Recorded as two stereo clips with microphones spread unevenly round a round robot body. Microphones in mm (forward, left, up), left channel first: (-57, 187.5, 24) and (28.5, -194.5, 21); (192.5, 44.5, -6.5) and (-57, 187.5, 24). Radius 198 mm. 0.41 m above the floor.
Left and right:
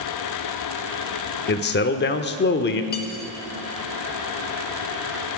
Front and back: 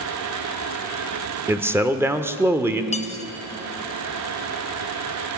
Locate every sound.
1.5 s a man speaking: 65° left, 0.9 m
2.9 s cutlery clinking: 35° left, 1.2 m